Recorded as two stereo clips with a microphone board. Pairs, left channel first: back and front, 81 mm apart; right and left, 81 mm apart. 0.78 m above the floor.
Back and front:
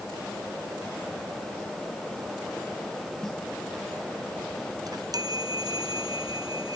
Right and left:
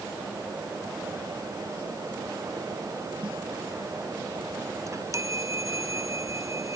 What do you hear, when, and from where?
3.2 s a snare drum: 95° left
4.9 s a chime: 40° left